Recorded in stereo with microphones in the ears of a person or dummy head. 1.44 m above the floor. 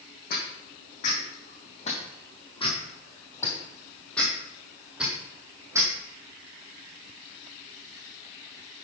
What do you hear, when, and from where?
0.3 s footsteps: 50° left (ahead or behind), 3 m; by 5.9 s 15° right (ahead or behind), 3 m